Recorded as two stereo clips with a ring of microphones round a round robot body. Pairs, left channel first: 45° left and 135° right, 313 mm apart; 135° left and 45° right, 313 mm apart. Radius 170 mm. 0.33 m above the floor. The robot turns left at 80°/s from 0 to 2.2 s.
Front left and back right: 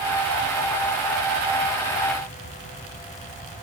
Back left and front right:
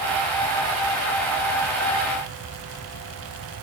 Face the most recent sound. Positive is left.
No sound to turn to.